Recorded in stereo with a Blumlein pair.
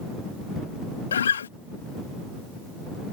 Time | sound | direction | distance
1.1 | a guitar | 65° left | ?